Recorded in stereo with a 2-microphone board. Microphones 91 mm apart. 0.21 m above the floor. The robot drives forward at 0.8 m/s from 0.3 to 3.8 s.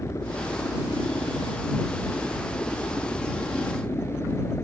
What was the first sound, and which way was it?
A helicopter, 30° left (ahead or behind).